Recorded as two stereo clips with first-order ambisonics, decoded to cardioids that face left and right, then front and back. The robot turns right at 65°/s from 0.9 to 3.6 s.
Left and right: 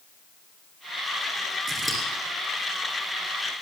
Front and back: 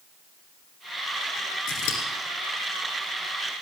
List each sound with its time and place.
1.7 s scissors: 25° right, 2.5 m; by 2.0 s 5° right, 2.5 m